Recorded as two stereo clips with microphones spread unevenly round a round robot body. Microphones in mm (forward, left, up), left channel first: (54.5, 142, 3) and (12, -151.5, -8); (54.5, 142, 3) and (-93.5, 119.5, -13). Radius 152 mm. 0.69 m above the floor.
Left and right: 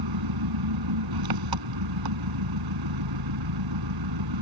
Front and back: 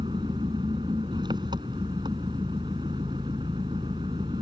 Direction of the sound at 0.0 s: 95° right.